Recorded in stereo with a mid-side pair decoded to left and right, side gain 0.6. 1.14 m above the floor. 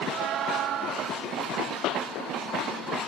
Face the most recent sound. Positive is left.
turn(degrees=65)